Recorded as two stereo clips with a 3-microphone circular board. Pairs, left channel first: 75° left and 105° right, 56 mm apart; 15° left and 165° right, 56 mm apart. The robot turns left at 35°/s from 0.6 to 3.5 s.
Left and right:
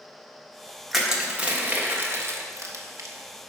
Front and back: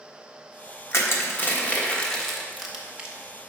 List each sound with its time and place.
0.9 s crushing: 20° right, 1.3 m; by 3.1 s 100° right, 1.3 m